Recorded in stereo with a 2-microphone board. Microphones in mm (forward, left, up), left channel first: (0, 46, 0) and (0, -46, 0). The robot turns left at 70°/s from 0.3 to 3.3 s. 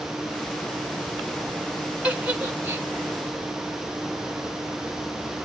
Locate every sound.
2.0 s a giggle: 15° right (ahead or behind), 1.5 m; by 2.9 s 20° right (ahead or behind), 1.5 m